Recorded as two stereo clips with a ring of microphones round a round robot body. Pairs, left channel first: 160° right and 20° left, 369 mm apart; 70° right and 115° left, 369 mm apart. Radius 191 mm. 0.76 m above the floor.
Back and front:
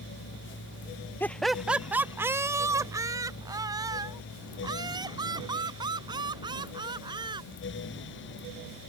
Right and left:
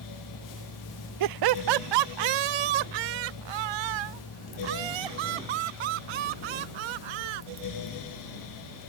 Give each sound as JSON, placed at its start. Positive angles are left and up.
{"t": 1.2, "sound": "laughter", "azimuth_deg": 120}